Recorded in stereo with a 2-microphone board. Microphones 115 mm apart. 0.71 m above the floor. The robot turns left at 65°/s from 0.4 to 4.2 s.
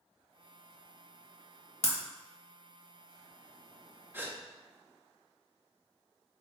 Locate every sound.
1.8 s breaking glass: 65° left (ahead or behind), 1.2 m; by 2.0 s 55° left (ahead or behind), 1.2 m
4.1 s a gasp: 20° right (ahead or behind), 0.9 m; by 4.4 s 15° right (ahead or behind), 0.9 m